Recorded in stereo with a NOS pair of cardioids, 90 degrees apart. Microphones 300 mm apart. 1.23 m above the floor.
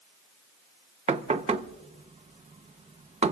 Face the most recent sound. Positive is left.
turn(degrees=-20)